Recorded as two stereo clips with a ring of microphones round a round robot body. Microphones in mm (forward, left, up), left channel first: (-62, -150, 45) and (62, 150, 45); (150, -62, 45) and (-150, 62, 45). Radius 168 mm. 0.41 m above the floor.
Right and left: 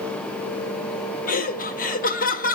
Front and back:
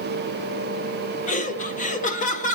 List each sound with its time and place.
1.3 s laughter: 70° right, 1.4 m